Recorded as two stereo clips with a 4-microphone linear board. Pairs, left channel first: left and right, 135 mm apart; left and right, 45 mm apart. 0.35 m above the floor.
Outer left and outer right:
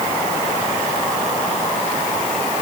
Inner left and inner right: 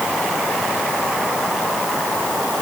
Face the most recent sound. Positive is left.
No sound to turn to.